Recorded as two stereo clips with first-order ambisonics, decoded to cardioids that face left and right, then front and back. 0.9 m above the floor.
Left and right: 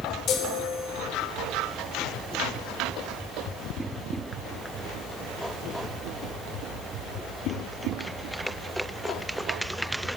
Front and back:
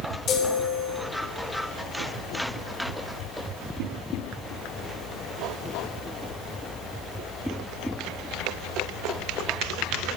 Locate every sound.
0.3 s a chime: 50° left, 1.1 m